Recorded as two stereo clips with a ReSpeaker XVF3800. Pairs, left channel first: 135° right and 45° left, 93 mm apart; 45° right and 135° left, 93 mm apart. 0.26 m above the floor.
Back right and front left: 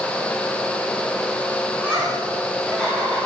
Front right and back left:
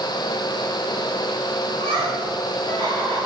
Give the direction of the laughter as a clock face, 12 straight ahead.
8 o'clock.